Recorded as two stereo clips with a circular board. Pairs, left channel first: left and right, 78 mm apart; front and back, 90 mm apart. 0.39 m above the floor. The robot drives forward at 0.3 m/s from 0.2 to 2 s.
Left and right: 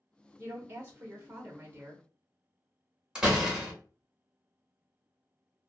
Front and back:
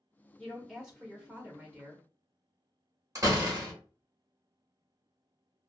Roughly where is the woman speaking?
Right.